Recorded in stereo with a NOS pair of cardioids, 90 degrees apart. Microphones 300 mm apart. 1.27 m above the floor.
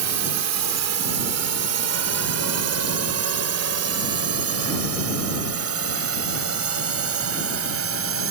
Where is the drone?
65° right; by 8.3 s 50° right.